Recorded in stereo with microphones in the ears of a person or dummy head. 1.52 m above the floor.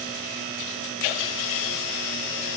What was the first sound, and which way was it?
Only background noise.